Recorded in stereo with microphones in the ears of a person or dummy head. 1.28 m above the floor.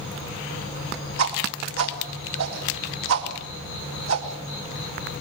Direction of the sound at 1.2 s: 85° right.